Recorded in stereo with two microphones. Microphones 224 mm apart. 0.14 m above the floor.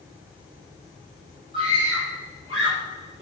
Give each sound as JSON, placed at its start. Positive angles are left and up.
{"t": 1.5, "sound": "a scream", "side_deg": -25, "distance_m": 4.0}